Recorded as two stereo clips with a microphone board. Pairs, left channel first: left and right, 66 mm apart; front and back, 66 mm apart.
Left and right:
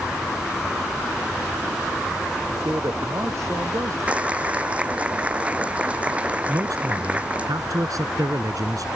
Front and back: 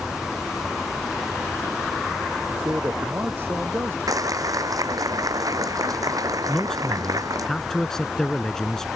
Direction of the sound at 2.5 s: 125° right.